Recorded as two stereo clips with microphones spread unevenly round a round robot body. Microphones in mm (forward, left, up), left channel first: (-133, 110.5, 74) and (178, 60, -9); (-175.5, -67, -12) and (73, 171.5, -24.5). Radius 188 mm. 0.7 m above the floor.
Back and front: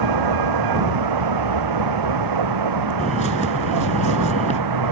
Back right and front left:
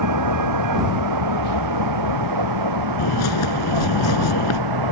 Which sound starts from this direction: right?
A bird, at 3.0 s.